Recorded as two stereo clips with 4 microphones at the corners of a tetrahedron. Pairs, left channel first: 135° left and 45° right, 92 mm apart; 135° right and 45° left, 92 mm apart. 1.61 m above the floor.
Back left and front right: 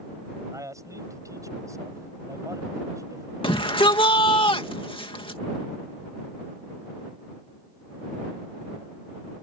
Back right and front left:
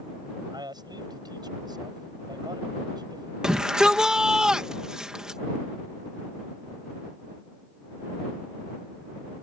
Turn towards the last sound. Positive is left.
turn(degrees=125)